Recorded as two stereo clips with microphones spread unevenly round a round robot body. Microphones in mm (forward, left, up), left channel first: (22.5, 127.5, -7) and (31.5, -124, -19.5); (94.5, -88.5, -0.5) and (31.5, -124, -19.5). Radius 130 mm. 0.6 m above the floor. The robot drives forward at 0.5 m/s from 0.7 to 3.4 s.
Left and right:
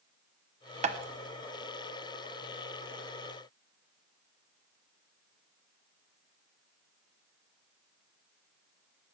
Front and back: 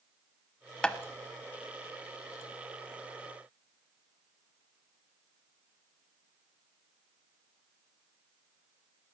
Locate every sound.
0.8 s tapping: 60° right, 0.9 m; by 1.0 s 65° right, 0.9 m